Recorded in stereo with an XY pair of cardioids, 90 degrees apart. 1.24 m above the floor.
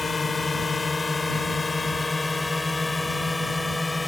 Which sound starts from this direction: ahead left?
A drone, at 0.0 s.